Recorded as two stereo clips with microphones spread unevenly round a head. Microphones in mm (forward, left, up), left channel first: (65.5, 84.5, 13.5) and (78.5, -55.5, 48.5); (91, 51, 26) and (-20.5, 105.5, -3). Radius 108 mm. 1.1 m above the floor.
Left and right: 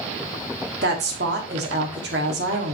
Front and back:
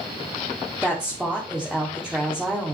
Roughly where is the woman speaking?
Behind right.